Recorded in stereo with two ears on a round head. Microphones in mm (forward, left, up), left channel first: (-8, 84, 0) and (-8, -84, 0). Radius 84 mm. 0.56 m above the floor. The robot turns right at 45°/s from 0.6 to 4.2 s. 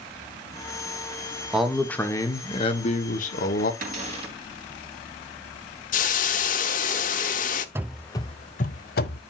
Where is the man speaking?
5° right, 1.4 m; by 3.7 s 90° left, 1.4 m.